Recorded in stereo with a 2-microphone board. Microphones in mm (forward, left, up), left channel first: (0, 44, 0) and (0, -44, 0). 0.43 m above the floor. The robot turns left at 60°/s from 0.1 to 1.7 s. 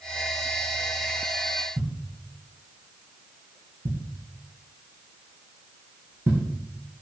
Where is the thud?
25° right (ahead or behind), 7 m.